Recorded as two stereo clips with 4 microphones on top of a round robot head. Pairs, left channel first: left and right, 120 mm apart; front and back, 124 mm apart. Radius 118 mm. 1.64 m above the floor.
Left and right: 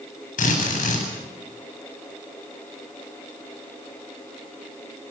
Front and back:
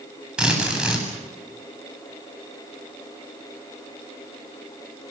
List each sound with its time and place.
0.4 s a drill: 95° left, 9.5 m